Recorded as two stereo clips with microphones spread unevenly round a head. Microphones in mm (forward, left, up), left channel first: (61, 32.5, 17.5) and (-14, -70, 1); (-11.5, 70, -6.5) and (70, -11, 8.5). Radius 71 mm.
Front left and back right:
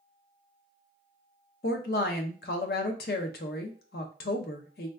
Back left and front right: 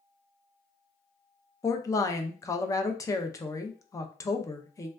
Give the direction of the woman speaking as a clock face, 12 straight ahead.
10 o'clock.